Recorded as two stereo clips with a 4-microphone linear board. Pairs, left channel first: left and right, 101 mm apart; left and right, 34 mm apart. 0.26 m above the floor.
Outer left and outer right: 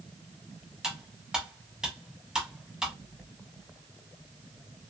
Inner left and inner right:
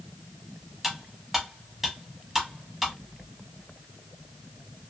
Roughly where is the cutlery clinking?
Centre.